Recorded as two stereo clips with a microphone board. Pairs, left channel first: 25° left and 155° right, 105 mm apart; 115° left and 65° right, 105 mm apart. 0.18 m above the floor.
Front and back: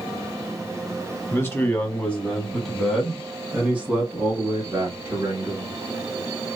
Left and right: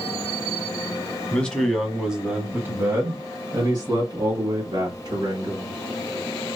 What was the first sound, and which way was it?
A man speaking, 50° left.